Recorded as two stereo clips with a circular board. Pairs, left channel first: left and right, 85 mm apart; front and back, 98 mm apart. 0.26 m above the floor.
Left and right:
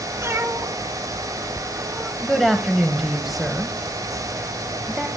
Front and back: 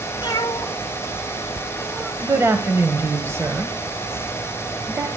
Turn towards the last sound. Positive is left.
turn(degrees=-175)